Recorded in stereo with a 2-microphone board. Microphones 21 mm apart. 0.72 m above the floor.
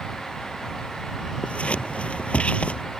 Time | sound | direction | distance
1.4 | scissors | 75° left (ahead or behind) | ?